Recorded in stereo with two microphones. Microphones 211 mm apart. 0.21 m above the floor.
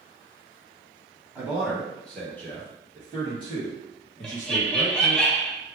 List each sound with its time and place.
1.4 s a man speaking: 10° right (ahead or behind), 1.3 m; by 5.2 s 40° left (ahead or behind), 2 m
4.2 s laughter: 5° left (ahead or behind), 1.1 m